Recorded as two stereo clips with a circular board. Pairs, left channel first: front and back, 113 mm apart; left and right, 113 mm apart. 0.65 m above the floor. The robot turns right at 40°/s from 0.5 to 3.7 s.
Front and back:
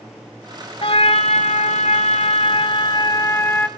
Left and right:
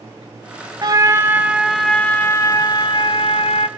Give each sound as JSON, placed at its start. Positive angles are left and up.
{"t": 0.8, "sound": "a trumpet", "azimuth_deg": -40, "distance_m": 1.2}